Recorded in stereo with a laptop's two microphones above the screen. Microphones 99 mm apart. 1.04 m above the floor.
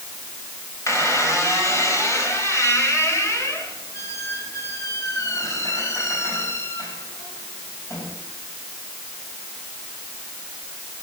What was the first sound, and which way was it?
A squeak, 35° left (ahead or behind).